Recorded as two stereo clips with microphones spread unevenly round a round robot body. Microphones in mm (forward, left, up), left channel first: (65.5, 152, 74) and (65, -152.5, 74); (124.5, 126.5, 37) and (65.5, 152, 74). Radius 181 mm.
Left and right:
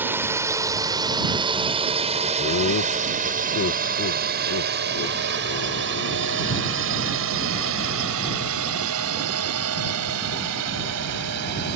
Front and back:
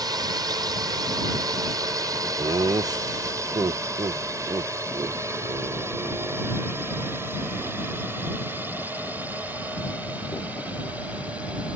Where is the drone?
170° right; by 11.8 s 110° right.